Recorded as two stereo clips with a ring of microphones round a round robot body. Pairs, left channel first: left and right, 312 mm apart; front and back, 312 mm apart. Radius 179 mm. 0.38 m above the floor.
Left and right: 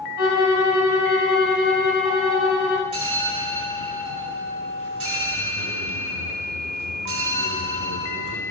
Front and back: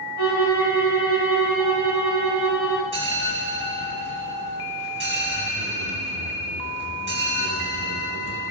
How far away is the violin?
About 4 m.